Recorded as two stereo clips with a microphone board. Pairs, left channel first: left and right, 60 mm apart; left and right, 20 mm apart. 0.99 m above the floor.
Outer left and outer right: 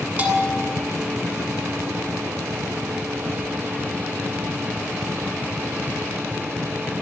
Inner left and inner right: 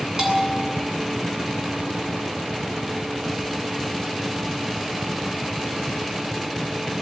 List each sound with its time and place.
0.2 s a bell: 30° right (ahead or behind), 8 m